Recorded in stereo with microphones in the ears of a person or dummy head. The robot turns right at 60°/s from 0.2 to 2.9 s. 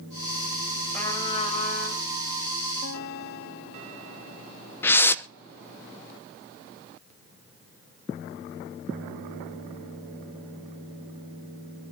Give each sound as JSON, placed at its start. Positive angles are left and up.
{"t": 0.9, "sound": "a trumpet", "azimuth_deg": 10, "distance_m": 4.0}
{"t": 2.8, "sound": "a guitar", "side_deg": 55, "distance_m": 1.4}
{"t": 4.8, "sound": "a whoosh", "side_deg": 10, "distance_m": 0.7}